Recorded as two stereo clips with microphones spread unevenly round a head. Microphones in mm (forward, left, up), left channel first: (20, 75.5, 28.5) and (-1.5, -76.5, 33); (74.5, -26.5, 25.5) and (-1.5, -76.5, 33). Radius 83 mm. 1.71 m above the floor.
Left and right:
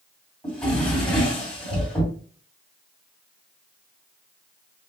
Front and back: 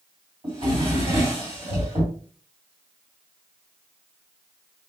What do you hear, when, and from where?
0.4 s a drawer: 165° left, 2.5 m